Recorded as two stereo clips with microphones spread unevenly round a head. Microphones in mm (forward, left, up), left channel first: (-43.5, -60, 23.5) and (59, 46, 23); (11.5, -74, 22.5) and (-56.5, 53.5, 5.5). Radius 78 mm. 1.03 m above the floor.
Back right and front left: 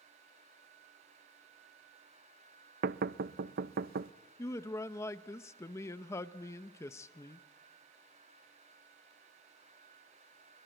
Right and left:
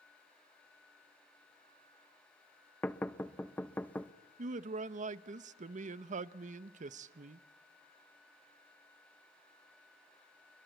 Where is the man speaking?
150° left, 0.8 m.